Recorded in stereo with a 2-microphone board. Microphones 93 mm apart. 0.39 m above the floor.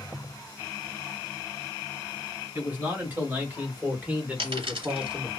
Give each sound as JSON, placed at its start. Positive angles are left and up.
{"t": 2.5, "sound": "a man speaking", "side_deg": -20, "distance_m": 1.6}
{"t": 4.4, "sound": "a dropped coin", "side_deg": -80, "distance_m": 1.4}